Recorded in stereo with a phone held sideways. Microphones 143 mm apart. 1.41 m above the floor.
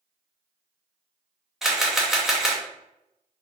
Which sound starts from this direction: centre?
A camera shutter, at 1.6 s.